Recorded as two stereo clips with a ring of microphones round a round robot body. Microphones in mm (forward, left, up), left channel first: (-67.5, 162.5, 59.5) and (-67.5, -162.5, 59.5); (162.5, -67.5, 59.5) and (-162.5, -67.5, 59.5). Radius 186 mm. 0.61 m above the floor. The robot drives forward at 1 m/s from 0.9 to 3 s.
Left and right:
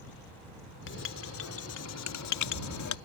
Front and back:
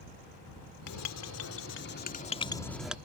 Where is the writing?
35° left; by 3.0 s 95° left.